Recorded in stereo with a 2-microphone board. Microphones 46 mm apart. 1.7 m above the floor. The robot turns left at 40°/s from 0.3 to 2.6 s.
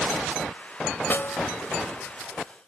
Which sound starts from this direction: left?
A snare drum, at 1.1 s.